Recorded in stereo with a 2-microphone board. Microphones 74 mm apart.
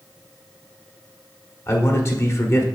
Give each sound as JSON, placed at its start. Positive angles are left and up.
{"t": 1.7, "sound": "a man speaking", "side_deg": 40, "distance_m": 1.2}